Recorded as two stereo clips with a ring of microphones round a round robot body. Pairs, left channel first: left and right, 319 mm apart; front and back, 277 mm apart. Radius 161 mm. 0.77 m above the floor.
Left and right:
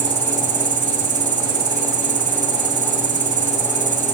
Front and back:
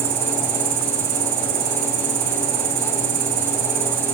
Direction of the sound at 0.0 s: 150° right.